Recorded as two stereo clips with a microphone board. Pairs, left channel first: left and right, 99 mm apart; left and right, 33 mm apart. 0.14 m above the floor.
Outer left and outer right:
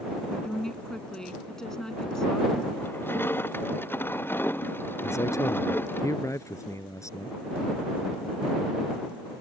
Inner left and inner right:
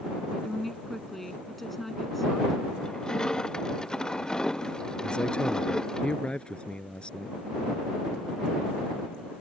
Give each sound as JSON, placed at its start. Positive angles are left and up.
{"t": 0.3, "sound": "a woman speaking", "side_deg": 5}
{"t": 2.8, "sound": "crushing", "side_deg": 20}
{"t": 5.0, "sound": "a man speaking", "side_deg": 30}